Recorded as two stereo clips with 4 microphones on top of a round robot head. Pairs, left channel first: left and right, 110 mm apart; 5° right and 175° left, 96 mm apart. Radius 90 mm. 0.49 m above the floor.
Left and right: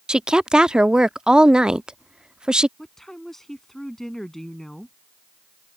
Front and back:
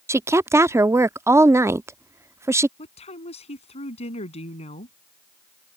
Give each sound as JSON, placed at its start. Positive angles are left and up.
{"t": 0.1, "sound": "a woman speaking", "azimuth_deg": -165}
{"t": 2.8, "sound": "a woman speaking", "azimuth_deg": 5}